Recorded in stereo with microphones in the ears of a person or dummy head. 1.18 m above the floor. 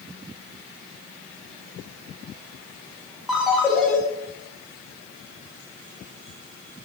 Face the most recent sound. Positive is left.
turn(degrees=5)  # may be behind; listen again after turning